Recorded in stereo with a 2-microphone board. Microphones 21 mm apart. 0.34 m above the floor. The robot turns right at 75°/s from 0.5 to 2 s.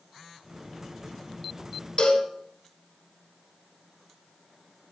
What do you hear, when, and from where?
2.0 s a cowbell: 70° left (ahead or behind), 0.6 m